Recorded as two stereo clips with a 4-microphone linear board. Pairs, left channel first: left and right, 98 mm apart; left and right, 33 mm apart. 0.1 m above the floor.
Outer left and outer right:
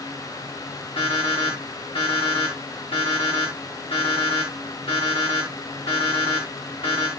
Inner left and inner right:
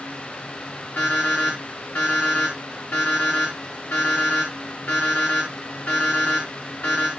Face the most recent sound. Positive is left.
turn(degrees=70)  # may be behind; listen again after turning